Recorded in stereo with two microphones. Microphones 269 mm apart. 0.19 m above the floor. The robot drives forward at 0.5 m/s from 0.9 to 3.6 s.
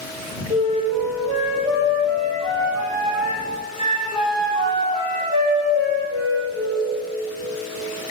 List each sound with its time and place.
0.5 s a flute: 20° right (ahead or behind), 4 m; by 6.9 s 15° right (ahead or behind), 5.5 m